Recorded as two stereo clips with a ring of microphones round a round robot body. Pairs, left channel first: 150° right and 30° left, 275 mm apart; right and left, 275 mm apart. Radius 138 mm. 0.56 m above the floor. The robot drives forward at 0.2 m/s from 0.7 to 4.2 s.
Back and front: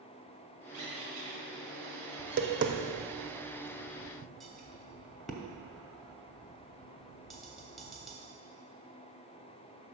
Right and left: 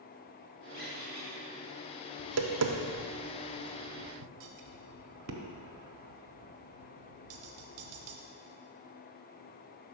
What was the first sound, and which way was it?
A squeak, 30° right.